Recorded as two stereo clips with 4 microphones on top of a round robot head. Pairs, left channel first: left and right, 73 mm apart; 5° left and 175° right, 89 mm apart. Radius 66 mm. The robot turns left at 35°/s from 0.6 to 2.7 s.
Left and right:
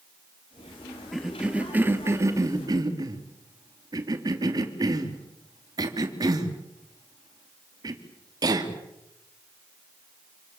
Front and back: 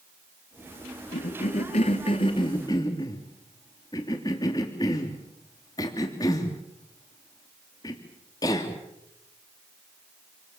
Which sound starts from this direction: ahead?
A cough, at 1.1 s.